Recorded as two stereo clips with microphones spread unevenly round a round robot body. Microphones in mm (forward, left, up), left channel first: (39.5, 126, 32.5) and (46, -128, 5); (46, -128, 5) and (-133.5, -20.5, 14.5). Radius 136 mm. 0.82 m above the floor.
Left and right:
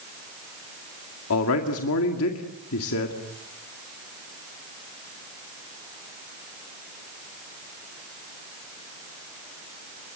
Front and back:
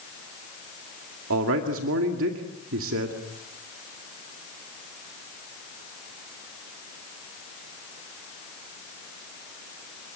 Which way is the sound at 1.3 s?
130° left.